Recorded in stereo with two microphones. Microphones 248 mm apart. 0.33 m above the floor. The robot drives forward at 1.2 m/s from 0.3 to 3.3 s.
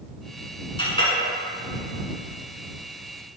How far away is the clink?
About 2 m.